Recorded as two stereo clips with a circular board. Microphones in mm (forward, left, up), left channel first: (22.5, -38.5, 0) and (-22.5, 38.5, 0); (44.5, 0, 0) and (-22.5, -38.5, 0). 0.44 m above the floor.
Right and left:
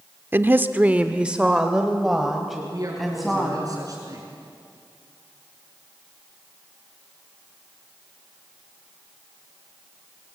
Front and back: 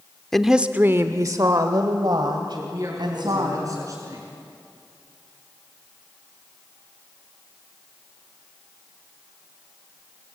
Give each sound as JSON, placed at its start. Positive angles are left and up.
{"t": 0.3, "sound": "a woman speaking", "azimuth_deg": 110, "distance_m": 0.8}
{"t": 2.5, "sound": "a man speaking", "azimuth_deg": 165, "distance_m": 6.0}